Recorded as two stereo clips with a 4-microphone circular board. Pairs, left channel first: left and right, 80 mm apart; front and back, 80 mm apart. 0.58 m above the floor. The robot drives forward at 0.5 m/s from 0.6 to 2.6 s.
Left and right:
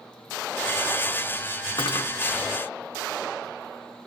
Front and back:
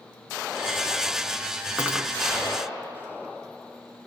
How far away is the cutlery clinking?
About 3.5 m.